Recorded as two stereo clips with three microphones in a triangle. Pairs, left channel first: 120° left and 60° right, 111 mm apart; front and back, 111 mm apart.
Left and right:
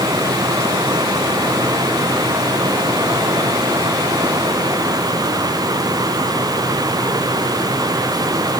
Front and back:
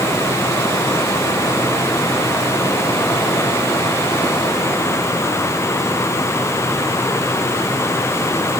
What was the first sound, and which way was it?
Only background noise.